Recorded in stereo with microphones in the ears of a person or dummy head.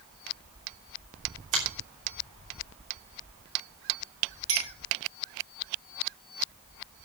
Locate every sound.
1.5 s a finger snap: 40° right (ahead or behind), 5 m
4.5 s a clink: 80° right, 5.5 m